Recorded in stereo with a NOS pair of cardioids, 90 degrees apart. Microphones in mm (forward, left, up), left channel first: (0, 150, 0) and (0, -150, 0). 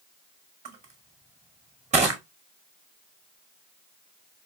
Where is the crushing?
25° right, 1.7 m.